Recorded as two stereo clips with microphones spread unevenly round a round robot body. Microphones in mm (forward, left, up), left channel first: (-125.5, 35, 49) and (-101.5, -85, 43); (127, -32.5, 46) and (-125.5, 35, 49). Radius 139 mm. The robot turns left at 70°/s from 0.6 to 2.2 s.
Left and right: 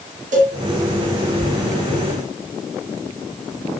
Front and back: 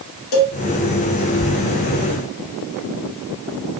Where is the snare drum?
No snare drum in this recording.